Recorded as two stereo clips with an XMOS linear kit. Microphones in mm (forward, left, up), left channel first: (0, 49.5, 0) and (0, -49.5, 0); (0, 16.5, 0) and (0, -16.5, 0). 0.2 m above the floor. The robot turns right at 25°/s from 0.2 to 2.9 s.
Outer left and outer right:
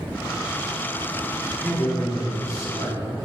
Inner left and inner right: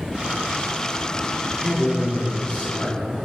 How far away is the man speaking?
About 1.2 m.